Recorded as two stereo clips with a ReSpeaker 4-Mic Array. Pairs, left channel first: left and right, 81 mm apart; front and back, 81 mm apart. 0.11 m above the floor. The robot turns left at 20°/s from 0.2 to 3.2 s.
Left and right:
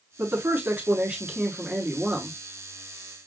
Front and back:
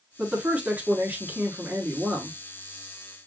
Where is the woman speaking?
125° right, 1.3 m; by 2.3 s 165° right, 1.3 m.